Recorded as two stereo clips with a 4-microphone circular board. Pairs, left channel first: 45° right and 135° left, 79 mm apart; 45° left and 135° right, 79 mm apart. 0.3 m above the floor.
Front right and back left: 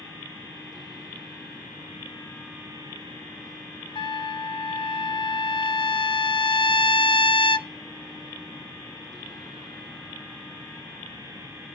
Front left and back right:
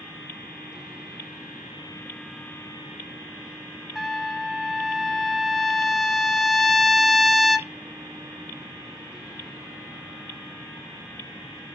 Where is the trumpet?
45° right, 0.7 m.